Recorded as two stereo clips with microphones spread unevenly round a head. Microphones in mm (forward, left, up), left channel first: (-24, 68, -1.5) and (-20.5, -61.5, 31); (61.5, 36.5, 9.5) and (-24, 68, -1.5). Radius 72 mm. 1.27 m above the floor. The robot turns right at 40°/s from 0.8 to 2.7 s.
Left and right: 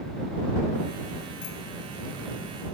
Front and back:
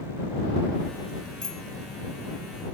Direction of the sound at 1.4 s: 55° left.